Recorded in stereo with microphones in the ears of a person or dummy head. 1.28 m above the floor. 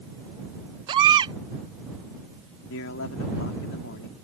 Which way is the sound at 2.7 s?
75° left (ahead or behind).